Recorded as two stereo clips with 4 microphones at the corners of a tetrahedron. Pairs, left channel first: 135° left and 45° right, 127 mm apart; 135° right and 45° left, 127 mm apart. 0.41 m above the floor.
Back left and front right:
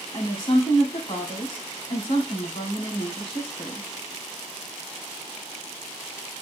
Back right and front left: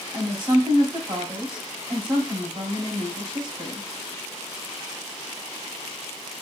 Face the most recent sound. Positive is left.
turn(degrees=90)